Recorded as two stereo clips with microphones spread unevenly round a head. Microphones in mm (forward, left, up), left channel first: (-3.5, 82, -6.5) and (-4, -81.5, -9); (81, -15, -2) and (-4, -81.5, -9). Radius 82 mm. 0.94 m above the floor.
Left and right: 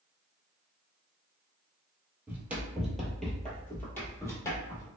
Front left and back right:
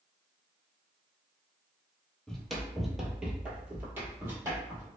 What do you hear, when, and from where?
2.3 s running footsteps: 25° right, 1.0 m; by 4.9 s 155° left, 1.3 m